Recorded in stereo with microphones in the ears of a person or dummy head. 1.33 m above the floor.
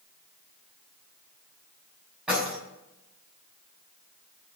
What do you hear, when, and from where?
2.3 s keys jangling: 5° right (ahead or behind), 6 m